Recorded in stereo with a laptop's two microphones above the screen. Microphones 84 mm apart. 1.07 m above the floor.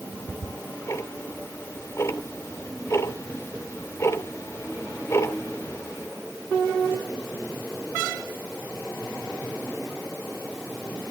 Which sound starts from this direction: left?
Ticking, at 0.1 s.